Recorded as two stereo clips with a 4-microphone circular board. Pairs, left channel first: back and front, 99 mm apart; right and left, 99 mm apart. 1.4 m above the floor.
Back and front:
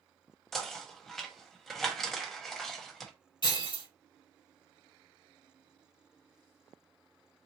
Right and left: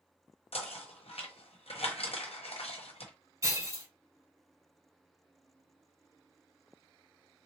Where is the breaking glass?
145° left, 3 m.